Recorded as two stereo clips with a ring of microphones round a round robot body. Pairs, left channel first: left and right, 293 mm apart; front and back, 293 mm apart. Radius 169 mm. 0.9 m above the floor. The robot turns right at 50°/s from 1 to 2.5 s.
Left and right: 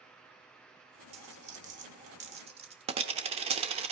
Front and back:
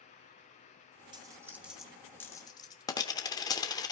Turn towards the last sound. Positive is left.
turn(degrees=-60)